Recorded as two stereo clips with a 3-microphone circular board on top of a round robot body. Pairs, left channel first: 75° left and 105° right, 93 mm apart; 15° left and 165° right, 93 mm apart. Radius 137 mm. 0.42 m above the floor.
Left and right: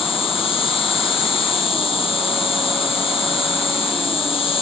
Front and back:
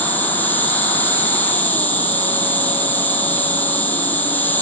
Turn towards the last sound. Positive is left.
turn(degrees=85)